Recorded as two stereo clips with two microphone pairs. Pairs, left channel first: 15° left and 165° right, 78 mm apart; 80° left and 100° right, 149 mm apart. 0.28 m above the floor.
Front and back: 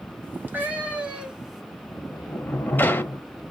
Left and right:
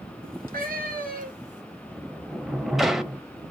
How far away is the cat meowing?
About 1.5 m.